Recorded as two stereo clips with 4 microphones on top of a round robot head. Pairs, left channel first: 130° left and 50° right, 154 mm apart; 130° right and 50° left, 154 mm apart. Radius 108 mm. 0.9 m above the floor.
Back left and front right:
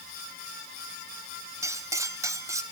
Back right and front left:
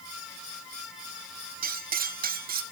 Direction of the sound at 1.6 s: 20° left.